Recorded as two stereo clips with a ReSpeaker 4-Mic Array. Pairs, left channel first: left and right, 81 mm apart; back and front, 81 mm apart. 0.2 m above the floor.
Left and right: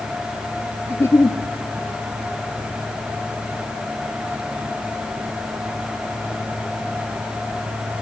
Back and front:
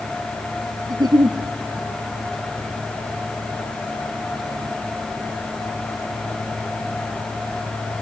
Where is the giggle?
35° left, 1.0 m.